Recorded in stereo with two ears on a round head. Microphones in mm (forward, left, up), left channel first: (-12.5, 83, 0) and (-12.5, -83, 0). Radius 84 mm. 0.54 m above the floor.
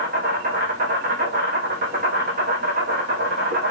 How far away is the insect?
About 3 m.